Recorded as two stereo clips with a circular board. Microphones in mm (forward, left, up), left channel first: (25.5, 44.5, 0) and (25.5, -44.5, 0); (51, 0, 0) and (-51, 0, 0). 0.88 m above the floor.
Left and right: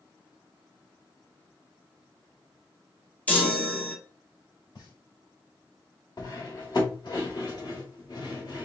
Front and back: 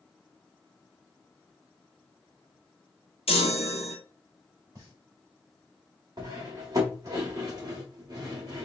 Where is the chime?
20° left, 1.1 m.